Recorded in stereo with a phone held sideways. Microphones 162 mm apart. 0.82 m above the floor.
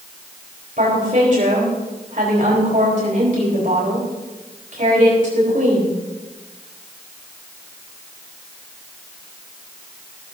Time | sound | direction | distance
0.8 | a woman speaking | 55° right (ahead or behind) | 4 m